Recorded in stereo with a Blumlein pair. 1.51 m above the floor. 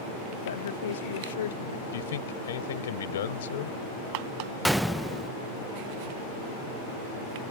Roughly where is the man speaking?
Ahead left.